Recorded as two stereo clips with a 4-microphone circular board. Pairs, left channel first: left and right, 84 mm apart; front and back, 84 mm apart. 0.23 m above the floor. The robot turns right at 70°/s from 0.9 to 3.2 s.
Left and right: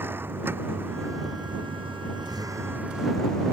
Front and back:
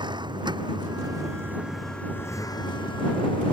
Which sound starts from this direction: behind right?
A vehicle, at 0.0 s.